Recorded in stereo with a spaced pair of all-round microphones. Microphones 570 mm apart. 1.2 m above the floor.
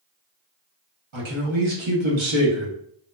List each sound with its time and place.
1.1 s a man speaking: 55° right (ahead or behind), 0.8 m